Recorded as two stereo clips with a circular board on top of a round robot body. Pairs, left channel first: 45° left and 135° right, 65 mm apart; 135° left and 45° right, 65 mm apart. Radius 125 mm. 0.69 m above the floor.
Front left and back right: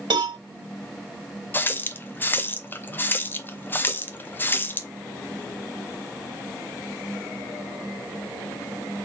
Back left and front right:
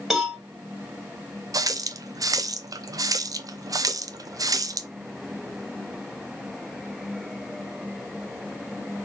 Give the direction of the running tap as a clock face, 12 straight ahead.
1 o'clock.